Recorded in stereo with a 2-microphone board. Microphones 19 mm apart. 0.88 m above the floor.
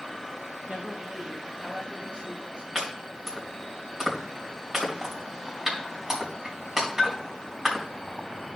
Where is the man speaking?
65° right (ahead or behind), 1.8 m.